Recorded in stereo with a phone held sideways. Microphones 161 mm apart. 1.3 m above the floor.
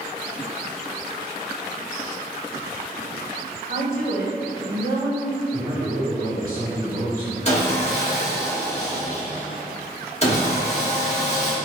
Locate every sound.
3.7 s a woman speaking: 70° right (ahead or behind), 0.9 m; by 5.4 s 80° right, 1.8 m
5.5 s a man speaking: 60° right (ahead or behind), 1.7 m
7.5 s sawing: 45° left (ahead or behind), 1.0 m